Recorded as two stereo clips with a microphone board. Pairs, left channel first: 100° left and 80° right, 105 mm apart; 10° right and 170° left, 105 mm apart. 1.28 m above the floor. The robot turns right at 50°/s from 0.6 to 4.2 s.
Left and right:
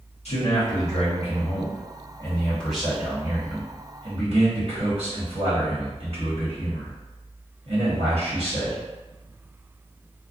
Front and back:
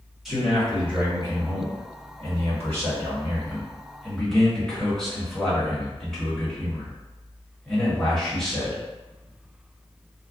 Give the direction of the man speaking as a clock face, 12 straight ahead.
9 o'clock.